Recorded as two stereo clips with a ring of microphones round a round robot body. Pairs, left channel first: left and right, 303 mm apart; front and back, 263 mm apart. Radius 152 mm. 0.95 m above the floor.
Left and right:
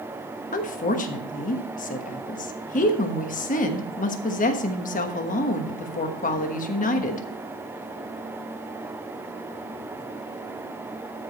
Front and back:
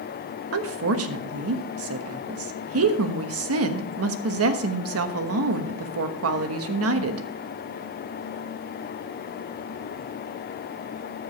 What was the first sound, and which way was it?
A woman speaking, 155° left.